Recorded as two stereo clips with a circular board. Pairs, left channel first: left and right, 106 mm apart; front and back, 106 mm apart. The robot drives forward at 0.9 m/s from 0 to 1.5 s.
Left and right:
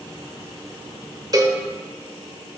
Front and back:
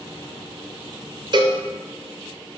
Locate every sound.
1.3 s a cowbell: 140° right, 0.5 m; by 1.6 s 150° right, 0.6 m